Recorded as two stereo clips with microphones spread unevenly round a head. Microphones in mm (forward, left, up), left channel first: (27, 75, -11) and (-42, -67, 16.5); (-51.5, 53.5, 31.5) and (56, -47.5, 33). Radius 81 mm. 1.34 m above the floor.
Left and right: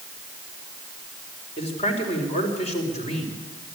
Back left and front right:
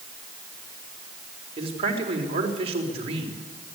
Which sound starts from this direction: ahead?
A man speaking, at 1.6 s.